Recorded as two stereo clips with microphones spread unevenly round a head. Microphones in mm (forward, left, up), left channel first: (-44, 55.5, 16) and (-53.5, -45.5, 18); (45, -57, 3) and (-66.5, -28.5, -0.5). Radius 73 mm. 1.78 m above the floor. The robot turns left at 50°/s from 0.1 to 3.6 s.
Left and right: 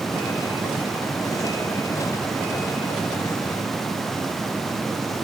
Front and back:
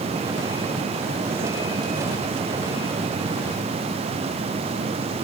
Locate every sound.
Only background noise.